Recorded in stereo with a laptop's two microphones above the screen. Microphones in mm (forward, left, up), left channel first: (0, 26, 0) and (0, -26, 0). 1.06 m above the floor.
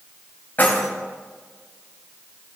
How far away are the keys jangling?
About 4 m.